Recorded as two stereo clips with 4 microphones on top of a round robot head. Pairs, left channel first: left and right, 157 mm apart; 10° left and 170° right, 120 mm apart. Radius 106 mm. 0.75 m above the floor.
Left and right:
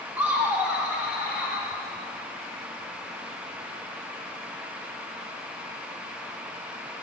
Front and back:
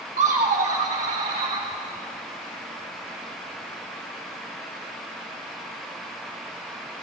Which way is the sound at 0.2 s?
170° right.